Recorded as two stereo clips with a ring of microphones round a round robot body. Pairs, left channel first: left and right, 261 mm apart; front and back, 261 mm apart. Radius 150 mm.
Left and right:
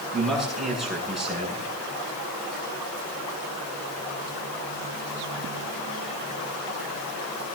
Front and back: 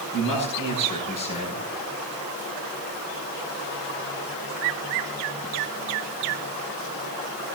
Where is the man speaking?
Straight ahead, 8 m.